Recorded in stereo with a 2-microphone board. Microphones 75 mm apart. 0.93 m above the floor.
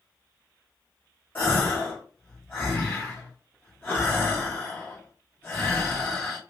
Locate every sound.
1.4 s a gasp: 30° left (ahead or behind), 1.9 m